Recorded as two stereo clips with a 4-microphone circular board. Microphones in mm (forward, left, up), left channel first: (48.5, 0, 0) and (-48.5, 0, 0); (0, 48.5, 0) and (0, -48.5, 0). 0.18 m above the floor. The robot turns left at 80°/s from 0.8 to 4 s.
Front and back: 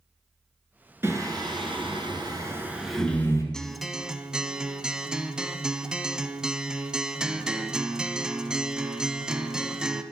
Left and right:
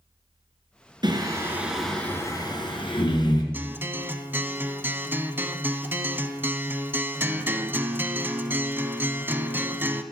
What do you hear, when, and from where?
1.0 s singing: 115° right, 2 m; by 3.4 s 50° left, 2 m
3.5 s a guitar: 70° right, 0.8 m; by 10.0 s 110° right, 0.8 m